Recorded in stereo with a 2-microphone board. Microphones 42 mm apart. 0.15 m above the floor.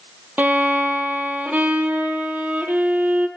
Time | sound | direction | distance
0.4 | a violin | 45° right (ahead or behind) | 0.9 m